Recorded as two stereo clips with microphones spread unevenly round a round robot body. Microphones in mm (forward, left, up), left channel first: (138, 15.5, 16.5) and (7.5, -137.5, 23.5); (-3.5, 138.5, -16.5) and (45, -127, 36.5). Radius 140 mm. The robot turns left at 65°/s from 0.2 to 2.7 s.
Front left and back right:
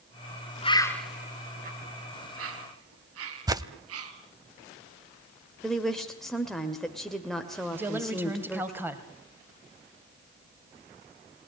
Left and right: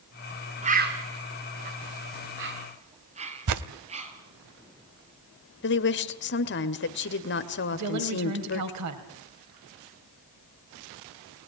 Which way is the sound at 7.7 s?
50° right.